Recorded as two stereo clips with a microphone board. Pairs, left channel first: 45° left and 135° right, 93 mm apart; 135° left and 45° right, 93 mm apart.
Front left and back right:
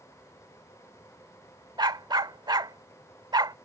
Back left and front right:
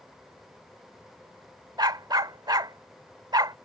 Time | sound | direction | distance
1.8 | a dog barking | 90° right | ?